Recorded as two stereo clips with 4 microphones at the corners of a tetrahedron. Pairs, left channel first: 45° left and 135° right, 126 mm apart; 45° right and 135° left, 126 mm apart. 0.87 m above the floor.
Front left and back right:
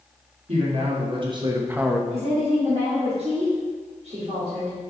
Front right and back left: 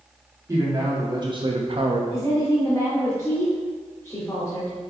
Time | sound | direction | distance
0.5 | a man speaking | 165° right | 1.8 m
2.1 | a woman speaking | 110° right | 2 m